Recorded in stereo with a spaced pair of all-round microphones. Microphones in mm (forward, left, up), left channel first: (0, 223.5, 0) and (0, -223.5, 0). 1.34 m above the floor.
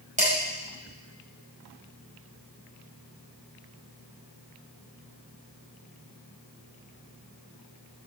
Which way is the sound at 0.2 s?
15° right (ahead or behind).